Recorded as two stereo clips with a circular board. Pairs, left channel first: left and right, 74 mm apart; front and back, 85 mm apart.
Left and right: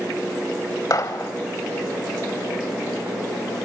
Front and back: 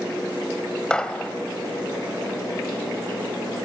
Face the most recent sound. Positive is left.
turn(degrees=75)